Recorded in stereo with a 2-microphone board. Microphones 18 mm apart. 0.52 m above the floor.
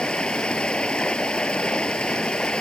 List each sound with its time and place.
0.0 s running water: 85° left